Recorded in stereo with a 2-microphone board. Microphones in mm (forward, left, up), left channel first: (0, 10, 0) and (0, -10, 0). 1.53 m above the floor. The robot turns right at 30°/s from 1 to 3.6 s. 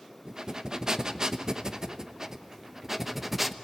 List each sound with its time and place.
0.2 s breathing: 95° right, 0.8 m; by 3.5 s 15° right, 0.8 m